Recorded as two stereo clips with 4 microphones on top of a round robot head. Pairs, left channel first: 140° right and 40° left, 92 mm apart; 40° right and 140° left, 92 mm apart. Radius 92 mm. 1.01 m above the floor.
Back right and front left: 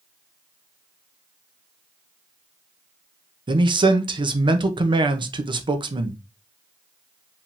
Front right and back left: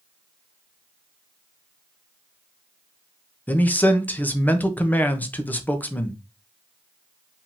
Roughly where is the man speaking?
Ahead left.